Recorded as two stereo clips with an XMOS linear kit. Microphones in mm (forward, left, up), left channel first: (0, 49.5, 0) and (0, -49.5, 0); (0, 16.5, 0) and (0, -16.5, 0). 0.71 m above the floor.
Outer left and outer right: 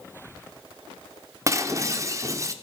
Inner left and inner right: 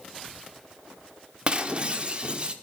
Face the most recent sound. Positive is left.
turn(degrees=-30)  # may be behind; listen again after turning